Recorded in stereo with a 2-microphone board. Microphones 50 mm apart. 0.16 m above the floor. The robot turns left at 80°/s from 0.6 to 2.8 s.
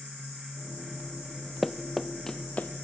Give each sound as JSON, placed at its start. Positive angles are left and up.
{"t": 1.6, "sound": "running footsteps", "side_deg": 0, "distance_m": 0.7}